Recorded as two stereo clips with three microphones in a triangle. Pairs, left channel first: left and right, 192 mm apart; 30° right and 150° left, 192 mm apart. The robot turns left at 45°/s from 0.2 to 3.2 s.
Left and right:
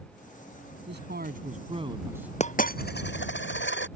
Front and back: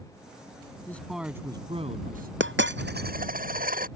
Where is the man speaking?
110° right; by 2.3 s 175° right.